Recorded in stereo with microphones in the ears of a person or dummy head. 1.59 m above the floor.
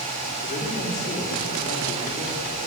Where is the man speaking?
45° left (ahead or behind), 5 m.